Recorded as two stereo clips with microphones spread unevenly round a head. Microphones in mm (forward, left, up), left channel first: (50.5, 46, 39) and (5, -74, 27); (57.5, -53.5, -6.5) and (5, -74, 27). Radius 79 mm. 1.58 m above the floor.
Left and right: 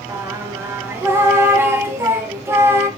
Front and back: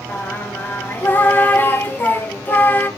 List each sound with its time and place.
0.1 s singing: 40° right, 0.6 m